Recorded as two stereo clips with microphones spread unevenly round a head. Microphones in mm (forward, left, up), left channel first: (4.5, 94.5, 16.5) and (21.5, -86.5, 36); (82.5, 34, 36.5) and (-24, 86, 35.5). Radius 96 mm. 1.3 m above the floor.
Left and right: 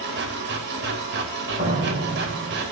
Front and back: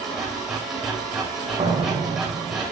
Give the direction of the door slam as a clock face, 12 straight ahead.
5 o'clock.